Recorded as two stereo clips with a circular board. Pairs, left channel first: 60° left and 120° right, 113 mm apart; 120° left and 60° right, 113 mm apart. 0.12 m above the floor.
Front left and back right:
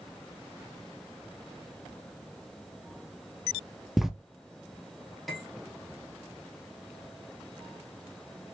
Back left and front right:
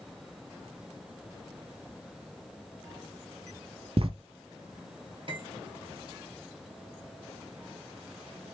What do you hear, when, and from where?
4.0 s writing: 30° right, 0.5 m
5.3 s cutlery clinking: 30° right, 1.5 m